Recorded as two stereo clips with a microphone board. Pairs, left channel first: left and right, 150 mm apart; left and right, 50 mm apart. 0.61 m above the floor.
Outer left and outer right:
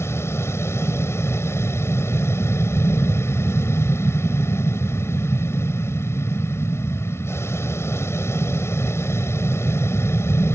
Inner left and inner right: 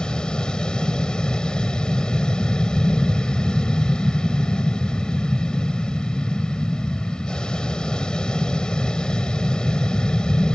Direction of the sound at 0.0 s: 15° left (ahead or behind).